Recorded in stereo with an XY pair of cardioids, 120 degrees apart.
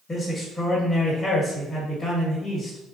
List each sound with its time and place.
0.1 s a man speaking: 25° left, 1.2 m